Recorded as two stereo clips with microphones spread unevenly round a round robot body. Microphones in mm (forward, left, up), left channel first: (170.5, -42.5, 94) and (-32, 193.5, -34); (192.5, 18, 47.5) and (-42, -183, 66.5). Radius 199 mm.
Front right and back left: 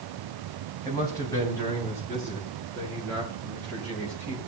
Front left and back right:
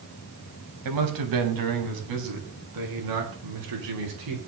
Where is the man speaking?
135° right, 4.5 m; by 4.5 s 140° right, 9 m.